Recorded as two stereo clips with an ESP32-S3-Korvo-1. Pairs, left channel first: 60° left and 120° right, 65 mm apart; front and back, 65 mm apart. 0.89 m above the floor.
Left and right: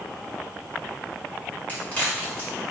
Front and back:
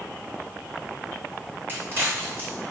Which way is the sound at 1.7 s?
125° left.